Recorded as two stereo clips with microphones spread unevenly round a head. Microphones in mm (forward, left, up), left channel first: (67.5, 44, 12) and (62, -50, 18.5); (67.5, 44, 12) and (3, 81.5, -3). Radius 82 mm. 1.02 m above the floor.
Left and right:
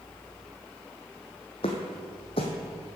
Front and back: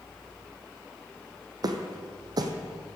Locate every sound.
1.6 s footsteps: 120° left, 1.7 m